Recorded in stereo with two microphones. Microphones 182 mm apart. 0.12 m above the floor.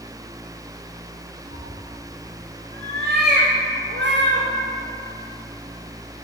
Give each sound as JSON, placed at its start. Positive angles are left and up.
{"t": 1.5, "sound": "a cat meowing", "side_deg": -45, "distance_m": 2.5}